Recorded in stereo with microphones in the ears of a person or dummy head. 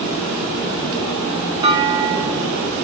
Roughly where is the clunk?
Right.